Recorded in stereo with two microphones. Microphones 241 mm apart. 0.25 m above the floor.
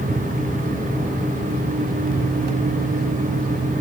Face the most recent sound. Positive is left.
No sound to turn to.